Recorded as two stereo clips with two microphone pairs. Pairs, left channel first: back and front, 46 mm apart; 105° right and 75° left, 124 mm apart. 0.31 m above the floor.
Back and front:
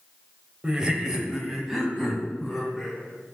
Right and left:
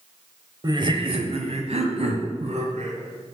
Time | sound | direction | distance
0.6 | laughter | 55° left | 1.0 m